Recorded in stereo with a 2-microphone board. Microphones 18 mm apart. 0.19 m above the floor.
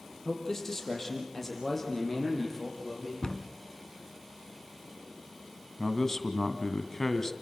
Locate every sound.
0.2 s a man speaking: 25° left (ahead or behind), 5 m; by 3.1 s 5° left (ahead or behind), 6.5 m
3.2 s a cupboard door: 45° left (ahead or behind), 1.4 m
5.8 s a man speaking: 30° left (ahead or behind), 1.9 m